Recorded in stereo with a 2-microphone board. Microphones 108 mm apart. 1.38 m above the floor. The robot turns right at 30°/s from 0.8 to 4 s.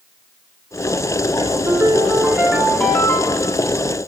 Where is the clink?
I don't hear a clink.